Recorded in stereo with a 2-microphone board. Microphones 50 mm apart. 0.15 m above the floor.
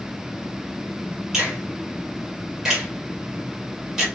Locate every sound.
1.3 s a finger snap: 10° right (ahead or behind), 2 m